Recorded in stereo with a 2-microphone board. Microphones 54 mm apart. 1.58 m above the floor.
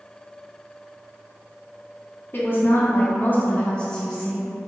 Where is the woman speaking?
40° left (ahead or behind), 0.9 m; by 4.5 s centre (ahead or behind), 0.7 m.